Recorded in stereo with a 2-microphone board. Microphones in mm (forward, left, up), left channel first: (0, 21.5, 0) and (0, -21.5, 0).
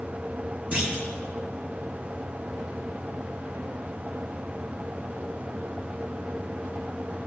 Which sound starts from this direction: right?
A clunk, at 0.7 s.